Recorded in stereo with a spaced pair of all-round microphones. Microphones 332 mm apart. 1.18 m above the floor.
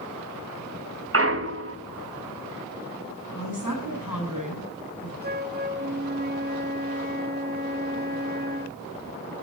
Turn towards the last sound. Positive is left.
turn(degrees=-30)  # may be behind; listen again after turning